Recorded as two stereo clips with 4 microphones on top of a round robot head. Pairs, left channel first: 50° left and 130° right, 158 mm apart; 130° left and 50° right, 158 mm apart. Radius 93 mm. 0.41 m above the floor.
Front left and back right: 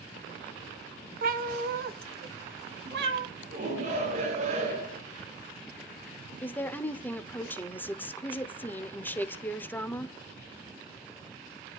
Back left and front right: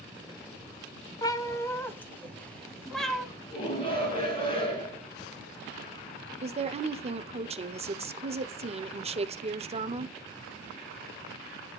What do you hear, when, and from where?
1.2 s a cat meowing: 160° right, 1.4 m; by 3.3 s 140° right, 2 m
3.5 s a shout: 170° right, 6 m
6.4 s a woman speaking: 25° right, 1.1 m